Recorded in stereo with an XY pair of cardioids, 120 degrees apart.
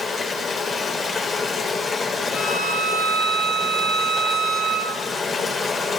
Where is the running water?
40° left, 5.5 m.